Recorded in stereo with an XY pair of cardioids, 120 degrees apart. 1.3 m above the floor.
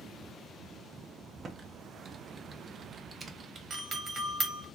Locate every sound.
1.4 s typing on a keyboard: 35° right, 0.7 m
3.7 s a doorbell: 35° right, 1.2 m